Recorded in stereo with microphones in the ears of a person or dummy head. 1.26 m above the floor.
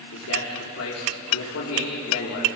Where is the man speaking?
80° left, 4 m.